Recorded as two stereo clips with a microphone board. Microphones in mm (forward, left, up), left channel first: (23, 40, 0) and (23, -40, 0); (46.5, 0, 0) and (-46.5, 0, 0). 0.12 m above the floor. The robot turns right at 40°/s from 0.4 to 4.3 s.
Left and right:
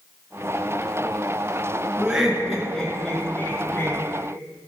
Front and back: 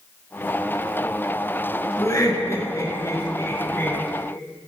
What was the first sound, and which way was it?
Laughter, 20° right.